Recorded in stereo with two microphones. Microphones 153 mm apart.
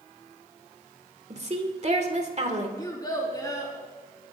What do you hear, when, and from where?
1.3 s a woman speaking: 50° right (ahead or behind), 2 m
2.8 s a child speaking: 25° left (ahead or behind), 5 m